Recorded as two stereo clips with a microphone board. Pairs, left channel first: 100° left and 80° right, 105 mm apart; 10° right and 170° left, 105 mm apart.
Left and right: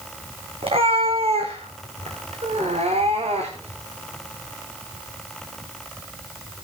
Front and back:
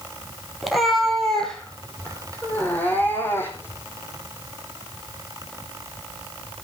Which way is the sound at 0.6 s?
100° right.